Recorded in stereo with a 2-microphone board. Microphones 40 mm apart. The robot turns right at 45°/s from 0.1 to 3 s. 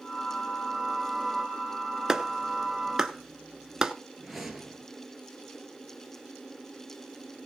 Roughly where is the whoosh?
Centre.